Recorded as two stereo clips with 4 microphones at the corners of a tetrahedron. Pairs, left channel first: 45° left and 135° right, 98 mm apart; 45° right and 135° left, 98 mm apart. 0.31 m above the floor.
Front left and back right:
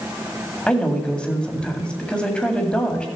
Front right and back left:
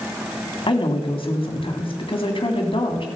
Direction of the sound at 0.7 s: 35° right.